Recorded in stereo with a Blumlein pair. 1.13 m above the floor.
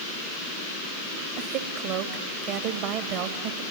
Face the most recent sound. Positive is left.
turn(degrees=-45)